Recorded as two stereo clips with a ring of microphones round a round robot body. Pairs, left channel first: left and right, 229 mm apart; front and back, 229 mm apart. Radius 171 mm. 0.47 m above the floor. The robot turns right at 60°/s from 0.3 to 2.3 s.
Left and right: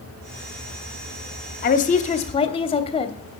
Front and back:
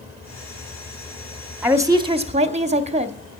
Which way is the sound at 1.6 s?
100° left.